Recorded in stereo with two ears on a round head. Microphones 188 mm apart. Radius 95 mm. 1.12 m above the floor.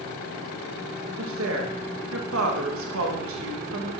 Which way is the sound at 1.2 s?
65° right (ahead or behind).